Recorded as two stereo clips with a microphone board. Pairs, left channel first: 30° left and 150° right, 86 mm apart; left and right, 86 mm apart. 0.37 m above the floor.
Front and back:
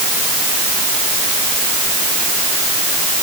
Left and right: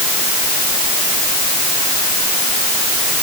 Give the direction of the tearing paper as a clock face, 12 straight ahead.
No tearing paper in this recording.